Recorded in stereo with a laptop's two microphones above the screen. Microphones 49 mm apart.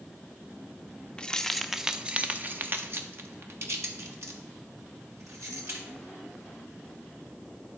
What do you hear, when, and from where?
1.2 s keys jangling: 20° left (ahead or behind), 0.7 m; by 5.8 s 75° right (ahead or behind), 2.5 m